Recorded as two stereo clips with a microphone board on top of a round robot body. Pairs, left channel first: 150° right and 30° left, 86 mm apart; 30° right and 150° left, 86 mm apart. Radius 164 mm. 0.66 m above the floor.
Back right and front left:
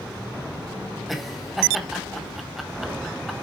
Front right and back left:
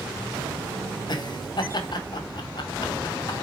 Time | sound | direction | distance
1.1 | laughter | 60° right | 2 m